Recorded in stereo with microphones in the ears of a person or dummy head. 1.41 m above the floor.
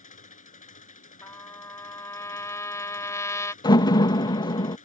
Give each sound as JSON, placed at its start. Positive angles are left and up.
{"t": 0.0, "sound": "an engine running", "side_deg": 40}
{"t": 1.2, "sound": "a trumpet", "side_deg": 15}
{"t": 3.6, "sound": "a door slam", "side_deg": 25}